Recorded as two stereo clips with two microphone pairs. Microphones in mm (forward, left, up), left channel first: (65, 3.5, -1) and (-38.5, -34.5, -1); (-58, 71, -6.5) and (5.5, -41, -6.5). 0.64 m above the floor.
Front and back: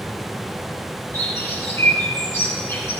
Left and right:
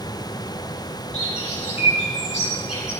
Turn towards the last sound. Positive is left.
turn(degrees=90)